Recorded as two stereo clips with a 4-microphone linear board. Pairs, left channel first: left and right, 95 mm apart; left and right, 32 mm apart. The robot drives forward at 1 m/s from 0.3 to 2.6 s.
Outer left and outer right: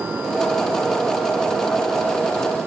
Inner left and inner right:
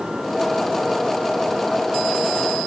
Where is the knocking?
No knocking in this recording.